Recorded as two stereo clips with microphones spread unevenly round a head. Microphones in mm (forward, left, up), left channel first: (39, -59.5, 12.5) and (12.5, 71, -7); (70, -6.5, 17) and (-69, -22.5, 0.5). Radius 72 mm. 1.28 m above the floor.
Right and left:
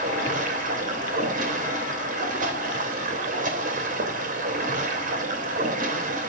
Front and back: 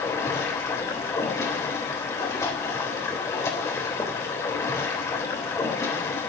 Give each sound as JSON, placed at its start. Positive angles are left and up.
{"t": 0.0, "sound": "running water", "azimuth_deg": 75, "distance_m": 3.0}